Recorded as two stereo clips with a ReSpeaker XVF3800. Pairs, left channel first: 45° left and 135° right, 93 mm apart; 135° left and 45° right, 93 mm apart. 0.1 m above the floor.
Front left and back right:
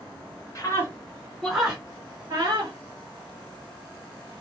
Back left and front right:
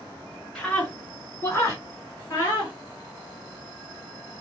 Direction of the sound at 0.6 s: 60° left.